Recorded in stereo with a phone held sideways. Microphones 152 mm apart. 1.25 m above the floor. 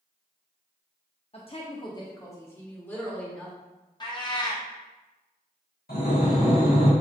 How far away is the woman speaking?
About 0.5 m.